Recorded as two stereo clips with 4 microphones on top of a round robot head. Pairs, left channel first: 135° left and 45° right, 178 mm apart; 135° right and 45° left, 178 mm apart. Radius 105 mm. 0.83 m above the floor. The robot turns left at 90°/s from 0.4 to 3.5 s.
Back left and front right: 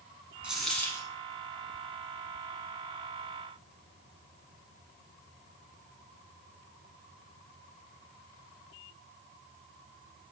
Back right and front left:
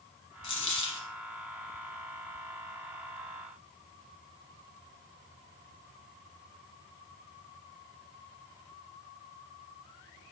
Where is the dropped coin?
120° right, 0.7 m; by 1.1 s straight behind, 0.7 m.